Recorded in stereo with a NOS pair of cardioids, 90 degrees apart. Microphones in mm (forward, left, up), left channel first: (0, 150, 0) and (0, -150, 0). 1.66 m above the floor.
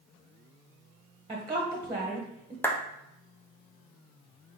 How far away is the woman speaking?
About 1.3 m.